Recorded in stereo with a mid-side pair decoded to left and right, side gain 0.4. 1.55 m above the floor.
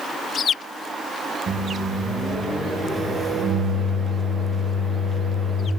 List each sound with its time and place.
1.5 s a microwave: 55° right, 1.1 m